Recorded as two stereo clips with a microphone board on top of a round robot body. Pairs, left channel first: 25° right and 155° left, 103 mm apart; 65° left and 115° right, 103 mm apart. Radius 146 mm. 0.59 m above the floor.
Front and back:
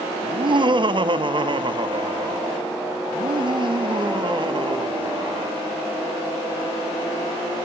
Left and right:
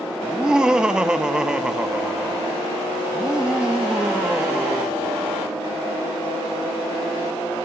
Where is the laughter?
165° left, 1.6 m.